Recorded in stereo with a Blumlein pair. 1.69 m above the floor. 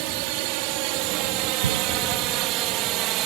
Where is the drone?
45° right; by 3.3 s 40° right.